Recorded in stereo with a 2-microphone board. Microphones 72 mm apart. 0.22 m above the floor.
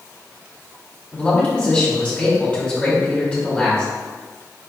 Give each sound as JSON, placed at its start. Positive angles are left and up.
{"t": 1.1, "sound": "a man speaking", "side_deg": 15, "distance_m": 1.4}